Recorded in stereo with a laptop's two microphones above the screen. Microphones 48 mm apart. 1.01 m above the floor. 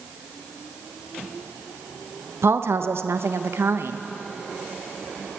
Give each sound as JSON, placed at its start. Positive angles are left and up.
{"t": 2.4, "sound": "a woman speaking", "side_deg": -60, "distance_m": 0.8}